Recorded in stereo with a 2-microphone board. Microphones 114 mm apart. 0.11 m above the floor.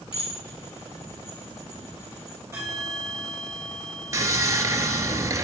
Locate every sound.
0.1 s dishes clattering: 50° left (ahead or behind), 5 m
2.5 s a bell: 30° right (ahead or behind), 3.5 m
4.1 s sawing: 30° right (ahead or behind), 0.9 m